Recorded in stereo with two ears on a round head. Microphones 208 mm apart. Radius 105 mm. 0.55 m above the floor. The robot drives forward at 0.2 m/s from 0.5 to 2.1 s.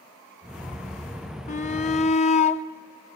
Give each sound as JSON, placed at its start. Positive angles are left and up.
{"t": 1.5, "sound": "a shout", "side_deg": 30, "distance_m": 0.7}